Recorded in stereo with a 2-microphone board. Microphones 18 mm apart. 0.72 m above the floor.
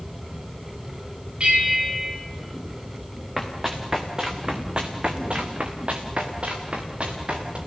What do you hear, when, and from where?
1.4 s a bell: 75° right (ahead or behind), 5.5 m
3.4 s running footsteps: 15° right (ahead or behind), 3.5 m; by 7.6 s 70° right (ahead or behind), 5 m